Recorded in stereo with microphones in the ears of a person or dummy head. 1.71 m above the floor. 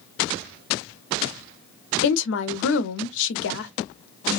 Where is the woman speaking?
70° left (ahead or behind), 0.7 m.